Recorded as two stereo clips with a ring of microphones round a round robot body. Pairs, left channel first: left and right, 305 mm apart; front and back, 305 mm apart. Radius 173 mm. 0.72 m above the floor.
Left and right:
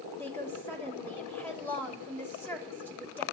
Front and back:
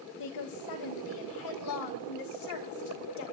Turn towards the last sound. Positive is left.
turn(degrees=5)